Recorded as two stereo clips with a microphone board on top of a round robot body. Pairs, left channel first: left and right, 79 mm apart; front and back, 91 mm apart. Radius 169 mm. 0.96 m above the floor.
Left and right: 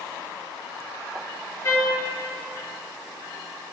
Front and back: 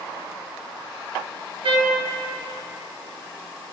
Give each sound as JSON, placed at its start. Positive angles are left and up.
{"t": 1.6, "sound": "a trumpet", "azimuth_deg": 150, "distance_m": 1.3}